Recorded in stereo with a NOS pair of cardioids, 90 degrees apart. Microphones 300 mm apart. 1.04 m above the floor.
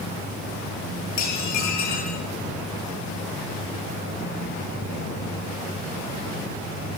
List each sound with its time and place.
1.2 s dishes clattering: 70° left, 7 m